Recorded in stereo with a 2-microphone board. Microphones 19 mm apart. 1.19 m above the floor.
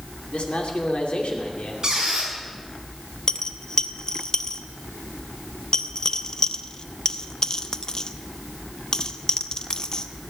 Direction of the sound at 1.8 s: 40° right (ahead or behind).